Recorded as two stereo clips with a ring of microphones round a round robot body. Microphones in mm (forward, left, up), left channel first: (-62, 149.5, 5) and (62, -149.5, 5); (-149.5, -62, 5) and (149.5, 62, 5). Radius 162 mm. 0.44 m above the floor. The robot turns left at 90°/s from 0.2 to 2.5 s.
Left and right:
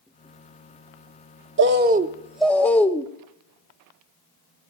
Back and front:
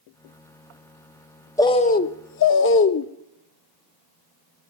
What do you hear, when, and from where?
1.6 s a bird: 80° right, 0.7 m; by 3.1 s 165° right, 0.7 m